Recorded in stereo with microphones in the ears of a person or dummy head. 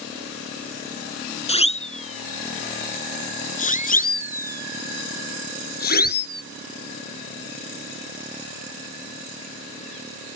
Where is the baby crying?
No baby crying in this recording.